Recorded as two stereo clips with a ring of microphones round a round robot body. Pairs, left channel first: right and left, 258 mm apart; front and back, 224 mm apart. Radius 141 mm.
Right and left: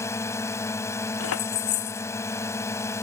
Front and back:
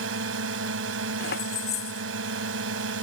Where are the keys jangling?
55° right.